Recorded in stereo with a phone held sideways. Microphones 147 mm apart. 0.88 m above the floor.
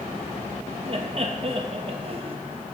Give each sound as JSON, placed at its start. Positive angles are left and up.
{"t": 0.8, "sound": "laughter", "side_deg": -45, "distance_m": 0.9}